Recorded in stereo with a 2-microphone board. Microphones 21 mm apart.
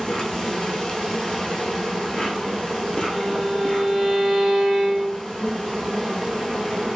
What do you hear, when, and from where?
0.0 s an insect: 40° left (ahead or behind), 0.9 m
3.1 s a violin: 35° left (ahead or behind), 1.8 m